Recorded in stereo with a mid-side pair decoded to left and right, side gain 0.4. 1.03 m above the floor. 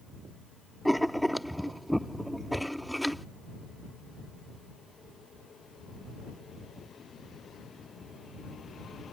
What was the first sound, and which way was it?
Writing, straight ahead.